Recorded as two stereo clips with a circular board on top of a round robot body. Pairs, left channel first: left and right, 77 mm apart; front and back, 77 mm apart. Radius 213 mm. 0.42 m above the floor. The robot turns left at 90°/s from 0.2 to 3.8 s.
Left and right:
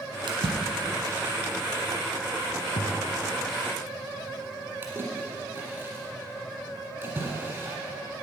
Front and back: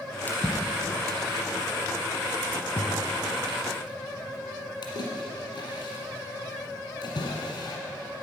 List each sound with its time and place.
0.3 s a splash: 65° right, 1.3 m; by 7.8 s 25° right, 1.3 m